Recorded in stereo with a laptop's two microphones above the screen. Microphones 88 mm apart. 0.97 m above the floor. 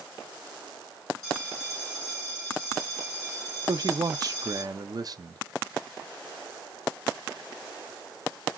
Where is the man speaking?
45° right (ahead or behind), 0.5 m.